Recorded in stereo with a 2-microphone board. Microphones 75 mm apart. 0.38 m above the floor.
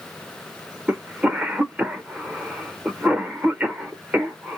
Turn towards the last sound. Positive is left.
turn(degrees=-20)  # may be behind; listen again after turning